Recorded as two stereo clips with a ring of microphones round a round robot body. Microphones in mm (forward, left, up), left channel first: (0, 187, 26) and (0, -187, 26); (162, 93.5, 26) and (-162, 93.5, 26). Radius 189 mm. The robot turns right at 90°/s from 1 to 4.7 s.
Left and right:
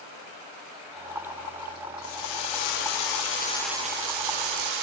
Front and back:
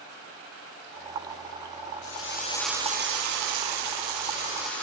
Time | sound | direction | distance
2.0 | a drill | 30° left | 9 m